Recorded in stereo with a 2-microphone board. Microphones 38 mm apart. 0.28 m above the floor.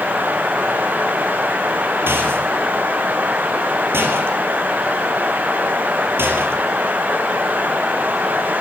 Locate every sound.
2.1 s a rattle: 85° right, 3 m